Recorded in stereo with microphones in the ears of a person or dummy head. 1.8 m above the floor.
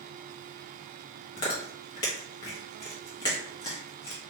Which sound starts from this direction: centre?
Chewing, at 1.4 s.